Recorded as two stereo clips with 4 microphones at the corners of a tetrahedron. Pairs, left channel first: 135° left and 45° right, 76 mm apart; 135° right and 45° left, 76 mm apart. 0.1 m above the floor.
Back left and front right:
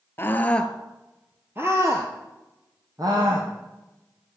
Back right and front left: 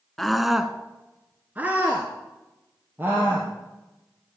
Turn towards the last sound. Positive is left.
turn(degrees=-20)